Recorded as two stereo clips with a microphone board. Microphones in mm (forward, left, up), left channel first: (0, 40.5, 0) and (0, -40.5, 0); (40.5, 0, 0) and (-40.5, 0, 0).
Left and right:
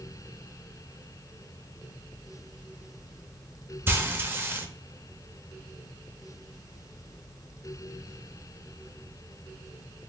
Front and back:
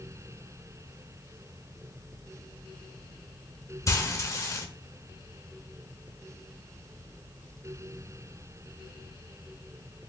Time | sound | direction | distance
3.9 | frying | 35° right | 0.7 m